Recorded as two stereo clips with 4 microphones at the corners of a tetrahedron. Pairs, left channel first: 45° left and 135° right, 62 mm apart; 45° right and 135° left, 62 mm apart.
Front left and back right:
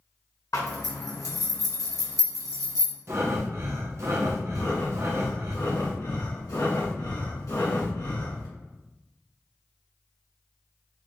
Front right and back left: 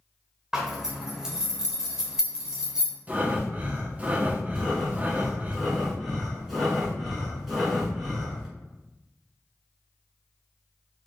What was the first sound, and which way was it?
A zipper, 55° left.